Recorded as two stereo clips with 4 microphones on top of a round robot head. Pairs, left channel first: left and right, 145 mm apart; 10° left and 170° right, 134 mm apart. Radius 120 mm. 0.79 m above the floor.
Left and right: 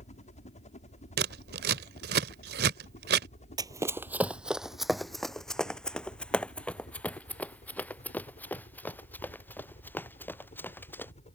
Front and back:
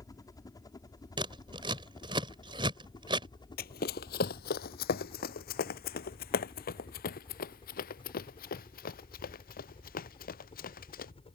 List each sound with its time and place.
0.0 s a helicopter: 65° left; by 11.3 s 50° left
1.2 s scissors: 105° right
3.6 s running footsteps: 30° right; by 11.1 s 15° left